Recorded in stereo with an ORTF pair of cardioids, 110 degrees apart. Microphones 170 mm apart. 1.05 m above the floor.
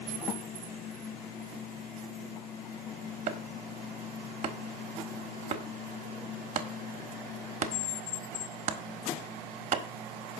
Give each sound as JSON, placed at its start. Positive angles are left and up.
{"t": 3.3, "sound": "chopping", "azimuth_deg": -40, "distance_m": 1.4}